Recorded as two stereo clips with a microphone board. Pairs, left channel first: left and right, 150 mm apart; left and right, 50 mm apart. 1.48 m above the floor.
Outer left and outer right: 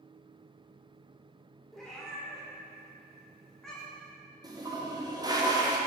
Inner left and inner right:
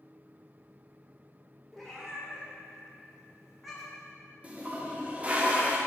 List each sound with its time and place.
1.7 s a cat meowing: centre (ahead or behind), 1.3 m
4.4 s a toilet flushing: 25° right (ahead or behind), 0.7 m